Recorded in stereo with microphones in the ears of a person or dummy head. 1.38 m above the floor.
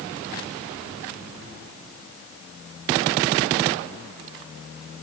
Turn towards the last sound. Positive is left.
No sound to turn to.